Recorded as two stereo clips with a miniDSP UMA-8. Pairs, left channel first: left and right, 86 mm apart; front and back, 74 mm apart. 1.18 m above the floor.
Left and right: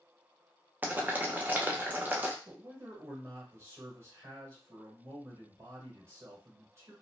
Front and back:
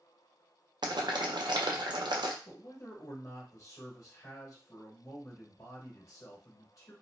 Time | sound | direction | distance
0.8 | boiling | 160° right | 0.5 m
2.5 | a man speaking | 35° right | 1.4 m